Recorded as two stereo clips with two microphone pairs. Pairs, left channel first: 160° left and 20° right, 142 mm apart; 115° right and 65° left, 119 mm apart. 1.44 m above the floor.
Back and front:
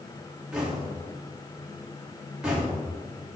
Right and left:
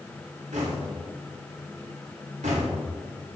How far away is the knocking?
About 2.5 m.